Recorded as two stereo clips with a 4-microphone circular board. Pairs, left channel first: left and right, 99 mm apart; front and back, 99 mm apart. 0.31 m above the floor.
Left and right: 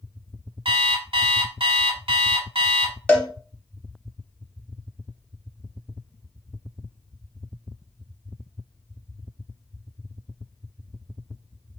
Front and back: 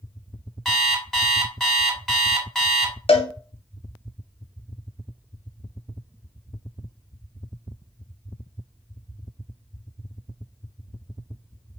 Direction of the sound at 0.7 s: 85° right.